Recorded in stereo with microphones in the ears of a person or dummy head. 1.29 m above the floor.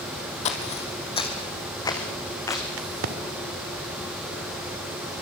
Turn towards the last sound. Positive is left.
turn(degrees=-75)  # may be behind; listen again after turning